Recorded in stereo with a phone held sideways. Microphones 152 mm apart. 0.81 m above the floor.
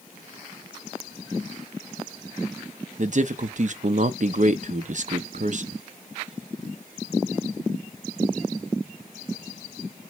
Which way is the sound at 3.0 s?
55° right (ahead or behind).